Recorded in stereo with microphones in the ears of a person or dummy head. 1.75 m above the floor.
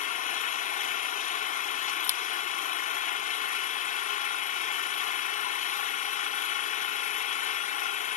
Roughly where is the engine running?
Left.